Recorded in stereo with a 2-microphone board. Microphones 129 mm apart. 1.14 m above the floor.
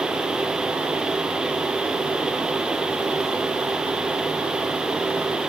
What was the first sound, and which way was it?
Only background noise.